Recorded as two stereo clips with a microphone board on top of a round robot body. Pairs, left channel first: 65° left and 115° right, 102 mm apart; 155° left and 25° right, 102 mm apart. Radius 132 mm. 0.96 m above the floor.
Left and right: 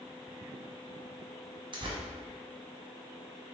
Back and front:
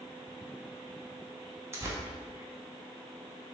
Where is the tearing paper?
85° right, 1.2 m.